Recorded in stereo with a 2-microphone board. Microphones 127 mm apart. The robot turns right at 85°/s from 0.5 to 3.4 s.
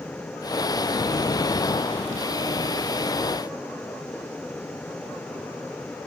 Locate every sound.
Only background noise.